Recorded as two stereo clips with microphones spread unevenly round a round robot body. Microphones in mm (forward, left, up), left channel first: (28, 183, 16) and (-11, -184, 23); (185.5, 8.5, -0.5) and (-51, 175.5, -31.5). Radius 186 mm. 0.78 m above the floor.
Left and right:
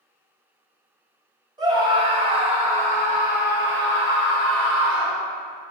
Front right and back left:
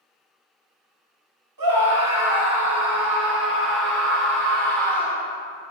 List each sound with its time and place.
1.6 s a scream: 175° right, 4.5 m; by 5.2 s 140° right, 3.5 m